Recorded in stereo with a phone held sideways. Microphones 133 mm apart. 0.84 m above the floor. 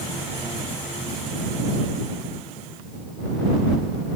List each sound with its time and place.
Only background noise.